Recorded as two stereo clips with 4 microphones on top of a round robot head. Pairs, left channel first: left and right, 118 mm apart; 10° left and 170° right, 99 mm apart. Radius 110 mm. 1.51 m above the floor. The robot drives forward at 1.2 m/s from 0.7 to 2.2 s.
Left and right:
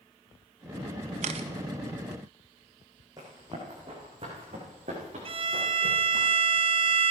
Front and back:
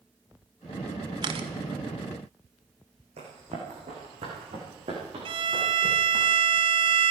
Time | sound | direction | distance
1.2 | a camera shutter | 115° right | 0.8 m
3.2 | running footsteps | 155° right | 5 m
5.2 | a violin | 135° right | 0.8 m